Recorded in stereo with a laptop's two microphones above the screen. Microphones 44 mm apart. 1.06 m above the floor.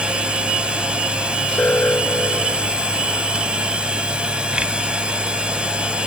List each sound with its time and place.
0.0 s a machine running: 25° right (ahead or behind)
1.6 s an alarm: 40° left (ahead or behind)